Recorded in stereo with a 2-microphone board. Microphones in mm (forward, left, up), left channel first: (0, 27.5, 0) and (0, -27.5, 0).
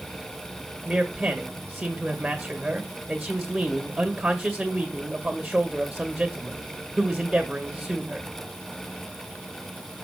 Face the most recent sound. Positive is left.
turn(degrees=-5)  # may be behind; listen again after turning